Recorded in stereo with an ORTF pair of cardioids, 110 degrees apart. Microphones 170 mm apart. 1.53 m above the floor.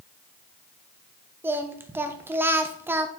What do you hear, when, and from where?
1.4 s singing: 15° right, 1.1 m